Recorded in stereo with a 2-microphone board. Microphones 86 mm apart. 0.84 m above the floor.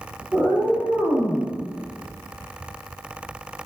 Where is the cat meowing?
10° right (ahead or behind), 1.0 m; by 1.5 s 75° left (ahead or behind), 0.7 m.